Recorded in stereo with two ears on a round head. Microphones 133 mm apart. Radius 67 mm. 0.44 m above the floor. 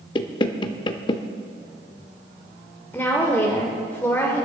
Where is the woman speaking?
15° left (ahead or behind), 1.4 m.